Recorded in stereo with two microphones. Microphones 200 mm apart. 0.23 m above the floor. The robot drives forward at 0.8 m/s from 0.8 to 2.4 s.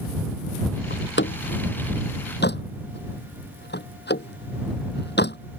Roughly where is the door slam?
Left.